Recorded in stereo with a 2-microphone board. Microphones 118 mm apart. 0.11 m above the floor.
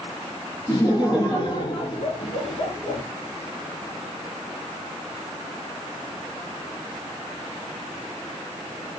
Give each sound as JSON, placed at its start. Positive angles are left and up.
{"t": 0.7, "sound": "laughter", "side_deg": 35, "distance_m": 2.5}